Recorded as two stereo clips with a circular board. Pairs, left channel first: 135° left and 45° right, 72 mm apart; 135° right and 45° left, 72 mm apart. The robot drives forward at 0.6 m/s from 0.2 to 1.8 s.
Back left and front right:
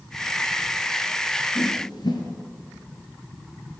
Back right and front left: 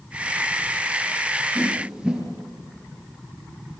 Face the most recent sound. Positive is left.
turn(degrees=125)